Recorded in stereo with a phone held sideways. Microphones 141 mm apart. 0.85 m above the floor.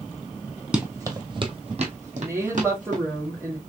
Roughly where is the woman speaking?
Centre.